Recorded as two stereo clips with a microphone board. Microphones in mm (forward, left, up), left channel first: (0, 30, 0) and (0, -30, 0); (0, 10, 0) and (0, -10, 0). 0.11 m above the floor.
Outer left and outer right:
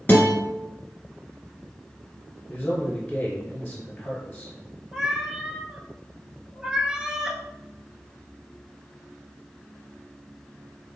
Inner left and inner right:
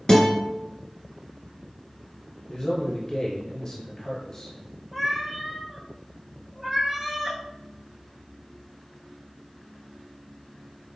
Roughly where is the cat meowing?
Centre.